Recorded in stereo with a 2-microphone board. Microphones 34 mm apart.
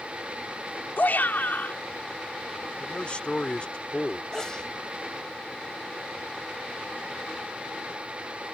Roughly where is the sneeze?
Left.